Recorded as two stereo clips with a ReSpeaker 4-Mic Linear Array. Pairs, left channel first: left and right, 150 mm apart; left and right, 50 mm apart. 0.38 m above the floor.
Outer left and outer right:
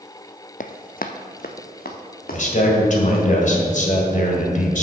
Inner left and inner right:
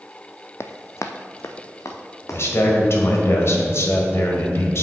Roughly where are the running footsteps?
Left.